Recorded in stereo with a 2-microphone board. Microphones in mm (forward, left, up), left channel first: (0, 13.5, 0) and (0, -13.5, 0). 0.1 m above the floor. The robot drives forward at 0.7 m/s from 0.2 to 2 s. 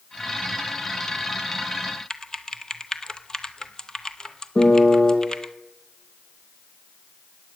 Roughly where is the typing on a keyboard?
Left.